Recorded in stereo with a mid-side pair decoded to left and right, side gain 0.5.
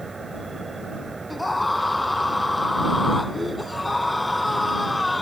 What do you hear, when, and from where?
0.0 s an insect: 25° right
1.3 s a scream: 10° left